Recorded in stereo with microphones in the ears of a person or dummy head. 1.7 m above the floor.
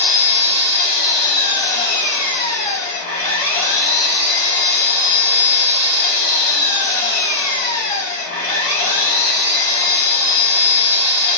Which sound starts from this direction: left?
An engine running, at 0.0 s.